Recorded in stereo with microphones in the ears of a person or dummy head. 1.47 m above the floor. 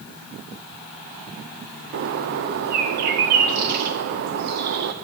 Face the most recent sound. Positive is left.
turn(degrees=-45)  # may be behind; listen again after turning